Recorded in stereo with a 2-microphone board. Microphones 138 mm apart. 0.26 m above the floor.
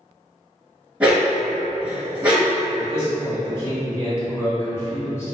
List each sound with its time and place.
1.0 s a dog barking: 10° right (ahead or behind), 1.0 m
2.8 s a man speaking: 20° left (ahead or behind), 1.3 m